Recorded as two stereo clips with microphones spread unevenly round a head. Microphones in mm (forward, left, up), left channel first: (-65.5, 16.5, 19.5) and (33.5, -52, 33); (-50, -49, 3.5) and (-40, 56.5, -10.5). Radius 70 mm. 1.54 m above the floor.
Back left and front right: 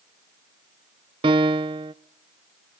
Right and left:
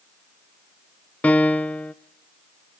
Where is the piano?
35° right, 0.5 m.